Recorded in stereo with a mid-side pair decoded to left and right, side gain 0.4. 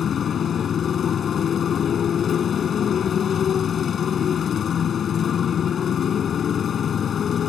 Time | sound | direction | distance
0.0 | a motorcycle | 55° left | ?